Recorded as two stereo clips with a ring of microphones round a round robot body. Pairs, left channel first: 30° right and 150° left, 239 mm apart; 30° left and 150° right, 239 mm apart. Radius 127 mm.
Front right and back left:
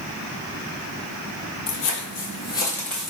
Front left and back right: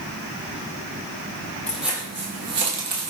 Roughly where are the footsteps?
Ahead right.